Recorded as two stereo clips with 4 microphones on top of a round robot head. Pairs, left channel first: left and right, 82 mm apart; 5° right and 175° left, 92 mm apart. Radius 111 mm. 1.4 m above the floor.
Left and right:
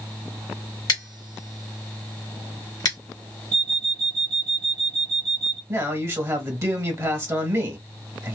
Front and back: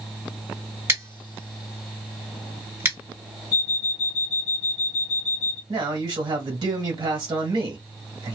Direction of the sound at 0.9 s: 115° left.